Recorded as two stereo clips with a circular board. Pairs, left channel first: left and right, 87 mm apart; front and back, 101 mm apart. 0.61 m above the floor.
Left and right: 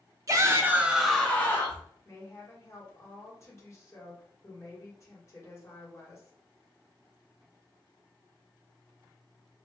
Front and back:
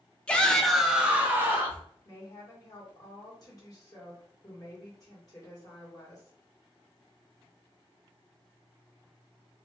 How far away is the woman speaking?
About 1.6 m.